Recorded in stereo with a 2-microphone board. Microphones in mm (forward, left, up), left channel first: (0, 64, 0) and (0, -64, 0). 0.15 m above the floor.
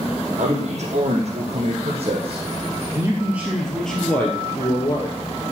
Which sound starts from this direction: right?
A man speaking, at 0.4 s.